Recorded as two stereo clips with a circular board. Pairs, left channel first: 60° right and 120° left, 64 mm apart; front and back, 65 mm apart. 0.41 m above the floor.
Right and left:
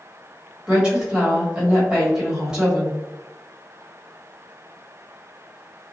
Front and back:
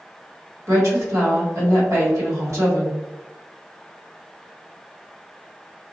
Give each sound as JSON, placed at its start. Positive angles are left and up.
{"t": 0.7, "sound": "a woman speaking", "azimuth_deg": -165, "distance_m": 1.6}